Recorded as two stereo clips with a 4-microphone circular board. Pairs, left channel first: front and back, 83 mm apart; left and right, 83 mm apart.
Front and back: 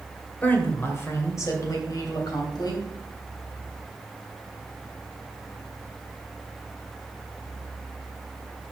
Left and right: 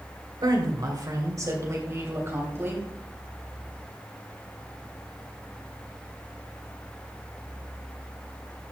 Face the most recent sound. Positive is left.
turn(degrees=-30)